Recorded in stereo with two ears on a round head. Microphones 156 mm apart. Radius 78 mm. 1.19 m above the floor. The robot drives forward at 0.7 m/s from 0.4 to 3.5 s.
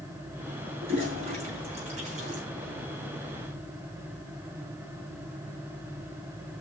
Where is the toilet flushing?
35° right (ahead or behind), 4.5 m; by 2.4 s 45° right (ahead or behind), 4 m.